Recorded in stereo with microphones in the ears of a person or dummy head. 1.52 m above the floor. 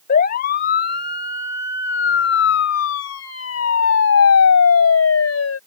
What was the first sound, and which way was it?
A siren, 50° left (ahead or behind).